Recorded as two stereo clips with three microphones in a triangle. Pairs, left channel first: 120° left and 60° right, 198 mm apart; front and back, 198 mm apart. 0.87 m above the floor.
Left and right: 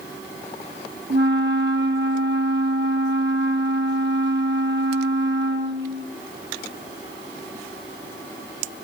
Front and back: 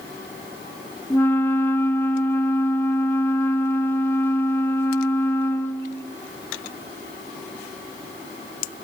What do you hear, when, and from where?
1.1 s a flute: 80° right, 1.3 m